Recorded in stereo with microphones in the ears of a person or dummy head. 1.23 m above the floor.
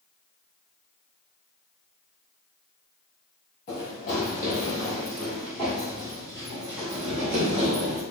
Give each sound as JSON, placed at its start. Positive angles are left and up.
{"t": 3.7, "sound": "running footsteps", "side_deg": 40, "distance_m": 1.5}